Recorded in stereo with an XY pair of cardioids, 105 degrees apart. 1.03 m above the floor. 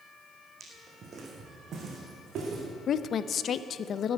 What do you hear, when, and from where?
0.6 s footsteps: 40° right, 3.5 m; by 2.6 s 65° right, 4.5 m
2.9 s a woman speaking: 60° left, 0.5 m